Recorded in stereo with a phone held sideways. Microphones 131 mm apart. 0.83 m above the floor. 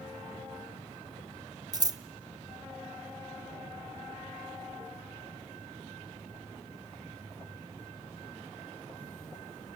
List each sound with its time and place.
1.7 s scissors: 30° right (ahead or behind), 0.5 m